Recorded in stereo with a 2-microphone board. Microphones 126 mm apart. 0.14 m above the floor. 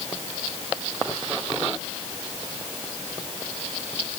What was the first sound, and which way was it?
Only background noise.